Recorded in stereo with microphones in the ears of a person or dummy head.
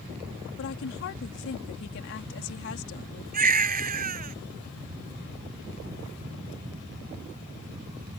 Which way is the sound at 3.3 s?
45° right (ahead or behind).